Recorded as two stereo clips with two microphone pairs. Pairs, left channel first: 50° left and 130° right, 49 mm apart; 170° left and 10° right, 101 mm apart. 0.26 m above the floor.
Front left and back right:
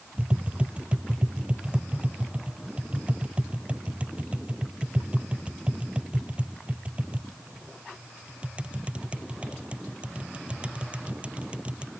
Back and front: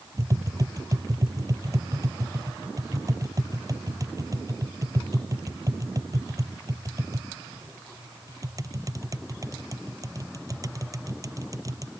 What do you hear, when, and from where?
0.2 s tapping: 65° right